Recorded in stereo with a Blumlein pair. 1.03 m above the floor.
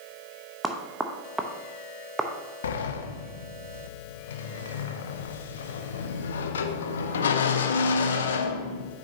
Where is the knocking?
10° right, 0.8 m.